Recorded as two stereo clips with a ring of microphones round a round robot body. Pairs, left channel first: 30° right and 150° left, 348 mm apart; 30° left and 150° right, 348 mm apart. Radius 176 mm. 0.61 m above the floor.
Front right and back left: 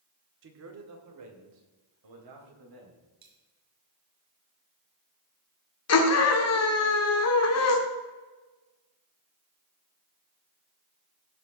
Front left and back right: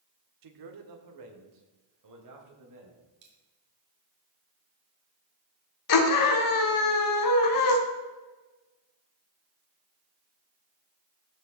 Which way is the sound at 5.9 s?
10° left.